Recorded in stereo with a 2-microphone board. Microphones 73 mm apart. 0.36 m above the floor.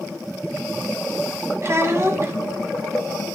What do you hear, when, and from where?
1.6 s a child speaking: 40° right (ahead or behind), 1.8 m